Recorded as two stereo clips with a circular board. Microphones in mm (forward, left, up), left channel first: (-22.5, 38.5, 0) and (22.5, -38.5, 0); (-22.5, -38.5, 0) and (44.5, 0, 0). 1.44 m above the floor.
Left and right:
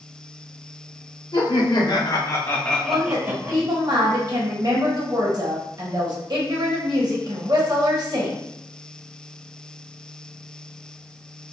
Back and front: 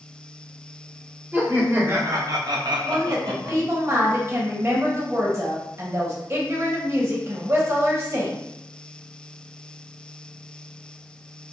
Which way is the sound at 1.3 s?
95° left.